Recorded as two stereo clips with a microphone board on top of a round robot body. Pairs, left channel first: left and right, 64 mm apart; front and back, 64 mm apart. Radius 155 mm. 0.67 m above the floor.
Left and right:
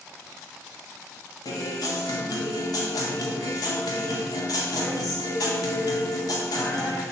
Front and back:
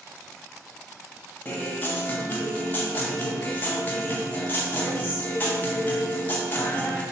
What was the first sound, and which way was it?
A guitar, 65° left.